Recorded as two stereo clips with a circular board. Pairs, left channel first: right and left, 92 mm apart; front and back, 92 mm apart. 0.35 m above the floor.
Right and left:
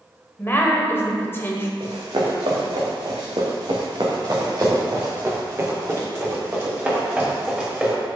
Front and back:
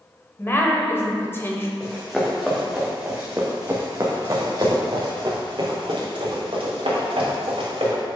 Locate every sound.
0.4 s a woman speaking: 45° right, 1.1 m
1.8 s running footsteps: 80° left, 2.5 m; by 7.9 s 170° left, 3.5 m